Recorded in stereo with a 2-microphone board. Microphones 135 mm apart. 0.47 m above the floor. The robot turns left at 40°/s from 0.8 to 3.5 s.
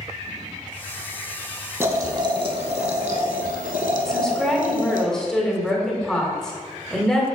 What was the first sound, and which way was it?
Boiling, 20° right.